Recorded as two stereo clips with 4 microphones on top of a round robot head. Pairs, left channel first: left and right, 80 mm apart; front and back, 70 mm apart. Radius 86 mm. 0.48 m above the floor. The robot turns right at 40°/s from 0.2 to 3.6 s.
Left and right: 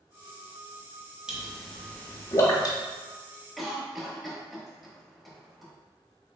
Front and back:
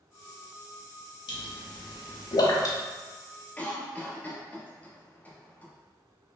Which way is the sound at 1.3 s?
10° right.